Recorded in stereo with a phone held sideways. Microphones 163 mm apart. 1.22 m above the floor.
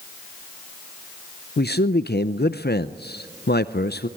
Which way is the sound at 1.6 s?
85° left.